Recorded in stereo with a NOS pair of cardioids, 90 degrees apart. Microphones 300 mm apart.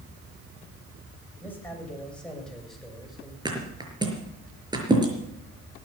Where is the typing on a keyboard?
I don't hear typing on a keyboard.